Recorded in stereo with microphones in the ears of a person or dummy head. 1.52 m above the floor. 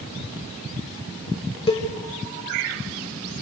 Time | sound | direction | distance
1.7 | a cowbell | 30° left (ahead or behind) | 2 m